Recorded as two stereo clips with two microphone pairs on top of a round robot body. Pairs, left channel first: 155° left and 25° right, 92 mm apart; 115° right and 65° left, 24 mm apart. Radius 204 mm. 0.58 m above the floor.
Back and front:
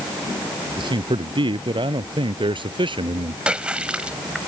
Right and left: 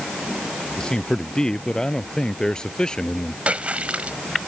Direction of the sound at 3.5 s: 50° left.